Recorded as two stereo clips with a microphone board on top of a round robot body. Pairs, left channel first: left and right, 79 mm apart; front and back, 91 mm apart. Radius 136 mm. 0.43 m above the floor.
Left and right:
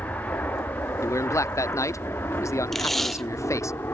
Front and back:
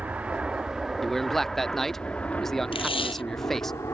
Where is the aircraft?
125° left; by 3.9 s 45° left.